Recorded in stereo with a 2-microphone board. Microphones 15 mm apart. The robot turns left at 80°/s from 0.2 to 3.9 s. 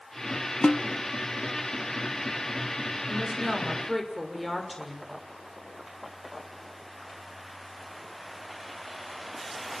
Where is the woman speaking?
110° right, 6 m; by 5.1 s 175° right, 6 m.